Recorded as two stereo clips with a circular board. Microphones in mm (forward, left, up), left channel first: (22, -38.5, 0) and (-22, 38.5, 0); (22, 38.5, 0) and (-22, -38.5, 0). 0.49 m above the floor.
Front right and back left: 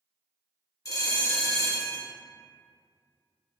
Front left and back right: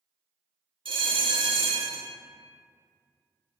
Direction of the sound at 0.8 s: 110° right.